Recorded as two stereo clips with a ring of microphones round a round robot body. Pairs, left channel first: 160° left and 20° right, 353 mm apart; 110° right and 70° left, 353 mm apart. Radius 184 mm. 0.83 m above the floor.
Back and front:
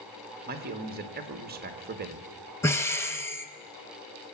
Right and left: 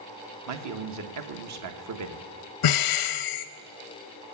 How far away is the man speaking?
About 1.4 m.